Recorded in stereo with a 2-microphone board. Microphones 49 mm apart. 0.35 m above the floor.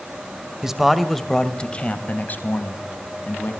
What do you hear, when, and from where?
0.6 s a man speaking: 10° right (ahead or behind), 2.0 m; by 3.5 s 55° left (ahead or behind), 3.5 m